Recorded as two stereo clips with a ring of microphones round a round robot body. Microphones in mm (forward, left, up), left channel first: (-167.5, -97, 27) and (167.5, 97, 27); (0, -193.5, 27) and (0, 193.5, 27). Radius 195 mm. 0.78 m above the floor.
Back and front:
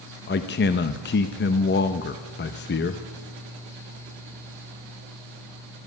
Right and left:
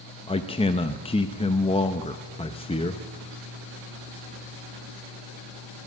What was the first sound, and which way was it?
A man speaking, 145° right.